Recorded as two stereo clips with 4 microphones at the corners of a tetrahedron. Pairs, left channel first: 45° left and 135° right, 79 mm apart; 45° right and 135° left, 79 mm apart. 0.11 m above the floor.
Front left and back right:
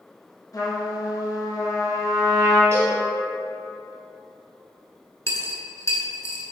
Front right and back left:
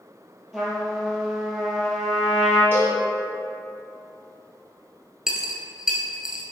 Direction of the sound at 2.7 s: 175° right.